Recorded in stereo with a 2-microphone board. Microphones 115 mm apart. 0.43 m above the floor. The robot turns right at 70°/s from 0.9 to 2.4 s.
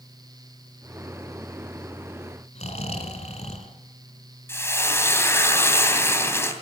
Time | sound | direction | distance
2.5 | snoring | 70° left (ahead or behind) | 2 m
4.5 | frying | 20° left (ahead or behind) | 2.5 m